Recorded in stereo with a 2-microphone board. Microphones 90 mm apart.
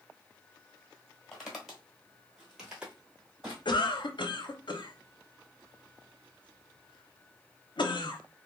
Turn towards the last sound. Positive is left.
turn(degrees=60)  # may be behind; listen again after turning